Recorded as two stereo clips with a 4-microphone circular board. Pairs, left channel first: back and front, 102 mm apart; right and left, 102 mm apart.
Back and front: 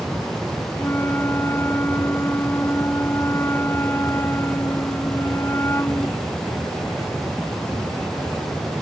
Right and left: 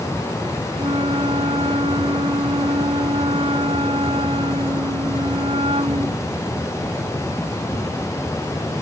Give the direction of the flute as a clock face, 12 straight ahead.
8 o'clock.